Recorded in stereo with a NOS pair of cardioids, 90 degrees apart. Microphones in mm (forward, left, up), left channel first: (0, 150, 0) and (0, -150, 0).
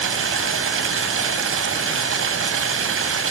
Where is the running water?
45° right, 3 m.